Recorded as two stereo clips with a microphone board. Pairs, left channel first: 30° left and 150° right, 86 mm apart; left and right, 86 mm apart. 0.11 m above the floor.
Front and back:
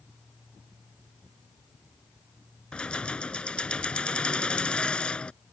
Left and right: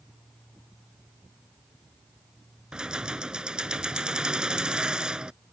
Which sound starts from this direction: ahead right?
Keys jangling, at 2.7 s.